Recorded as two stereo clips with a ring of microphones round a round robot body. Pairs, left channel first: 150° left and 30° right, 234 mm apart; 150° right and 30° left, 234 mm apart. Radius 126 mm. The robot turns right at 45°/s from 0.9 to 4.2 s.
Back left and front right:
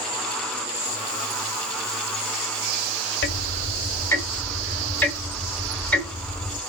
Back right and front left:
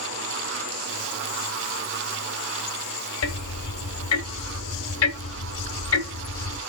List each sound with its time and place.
3.2 s ticking: 170° right, 1.1 m; by 6.6 s 125° right, 1.1 m